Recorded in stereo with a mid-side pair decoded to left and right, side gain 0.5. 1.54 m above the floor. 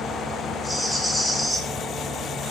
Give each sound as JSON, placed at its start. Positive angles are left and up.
{"t": 0.6, "sound": "a rattle", "azimuth_deg": 0, "distance_m": 0.9}